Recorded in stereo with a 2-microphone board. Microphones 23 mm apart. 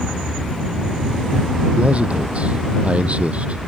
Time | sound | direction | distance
1.8 | a man speaking | 60° right (ahead or behind) | ?